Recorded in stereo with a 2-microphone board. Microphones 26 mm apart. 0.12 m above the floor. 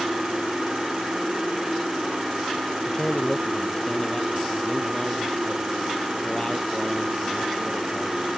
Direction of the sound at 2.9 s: 25° left (ahead or behind).